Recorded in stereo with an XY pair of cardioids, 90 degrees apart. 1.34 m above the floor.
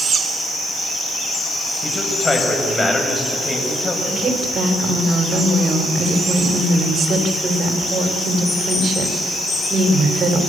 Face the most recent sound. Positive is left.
turn(degrees=-55)